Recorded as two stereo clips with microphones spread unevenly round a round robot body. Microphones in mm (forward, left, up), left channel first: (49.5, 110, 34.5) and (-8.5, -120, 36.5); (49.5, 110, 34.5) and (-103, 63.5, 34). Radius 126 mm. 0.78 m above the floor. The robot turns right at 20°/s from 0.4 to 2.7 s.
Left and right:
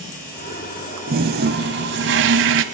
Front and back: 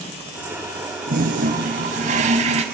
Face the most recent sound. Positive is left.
turn(degrees=-115)